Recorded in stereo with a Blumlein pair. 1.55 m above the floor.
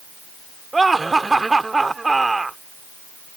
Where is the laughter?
10° right.